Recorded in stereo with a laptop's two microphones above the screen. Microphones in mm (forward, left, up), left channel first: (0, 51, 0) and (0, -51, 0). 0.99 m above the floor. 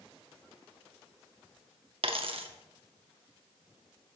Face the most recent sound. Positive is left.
turn(degrees=-65)  # may be behind; listen again after turning